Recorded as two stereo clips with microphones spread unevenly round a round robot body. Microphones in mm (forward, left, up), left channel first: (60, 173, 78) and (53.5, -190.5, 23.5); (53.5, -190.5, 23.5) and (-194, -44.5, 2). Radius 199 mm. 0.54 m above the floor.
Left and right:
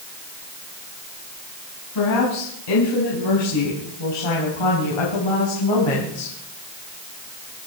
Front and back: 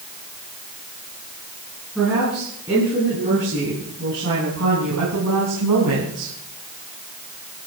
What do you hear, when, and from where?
1.9 s a woman speaking: 60° left, 5.5 m; by 6.3 s 115° left, 5 m